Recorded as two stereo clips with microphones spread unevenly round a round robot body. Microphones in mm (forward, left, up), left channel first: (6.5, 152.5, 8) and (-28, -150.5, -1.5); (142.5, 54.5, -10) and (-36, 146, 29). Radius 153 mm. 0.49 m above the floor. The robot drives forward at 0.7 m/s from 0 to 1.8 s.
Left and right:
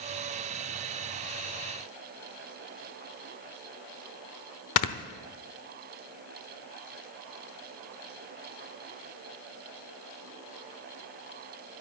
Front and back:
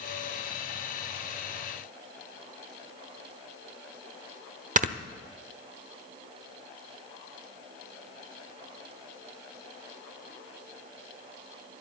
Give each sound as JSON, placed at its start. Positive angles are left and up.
{"t": 4.8, "sound": "snoring", "azimuth_deg": 100, "distance_m": 1.0}